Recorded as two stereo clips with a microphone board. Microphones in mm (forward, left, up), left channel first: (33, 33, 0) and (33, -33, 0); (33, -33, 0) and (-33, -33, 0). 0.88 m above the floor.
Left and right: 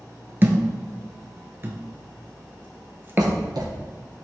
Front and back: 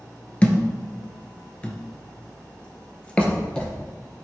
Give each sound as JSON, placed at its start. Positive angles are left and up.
{"t": 0.4, "sound": "a thud", "azimuth_deg": -60, "distance_m": 1.0}
{"t": 3.2, "sound": "writing", "azimuth_deg": -75, "distance_m": 1.7}